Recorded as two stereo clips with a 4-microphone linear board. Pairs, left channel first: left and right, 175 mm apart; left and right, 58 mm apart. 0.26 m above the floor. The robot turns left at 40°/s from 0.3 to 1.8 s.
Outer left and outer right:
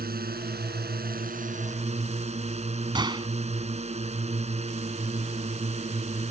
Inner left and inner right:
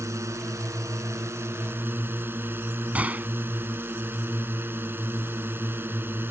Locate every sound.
0.0 s a drone: 75° right; by 6.3 s 135° right
3.0 s a gunshot: 25° right (ahead or behind)